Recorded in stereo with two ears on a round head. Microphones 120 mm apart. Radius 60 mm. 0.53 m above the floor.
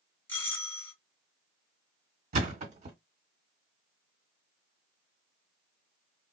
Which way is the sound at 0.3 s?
15° left (ahead or behind).